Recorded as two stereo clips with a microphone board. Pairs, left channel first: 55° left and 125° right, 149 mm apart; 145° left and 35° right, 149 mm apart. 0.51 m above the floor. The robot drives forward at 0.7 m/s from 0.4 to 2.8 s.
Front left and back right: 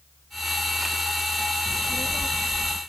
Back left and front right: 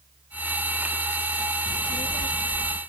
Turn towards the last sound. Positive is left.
turn(degrees=170)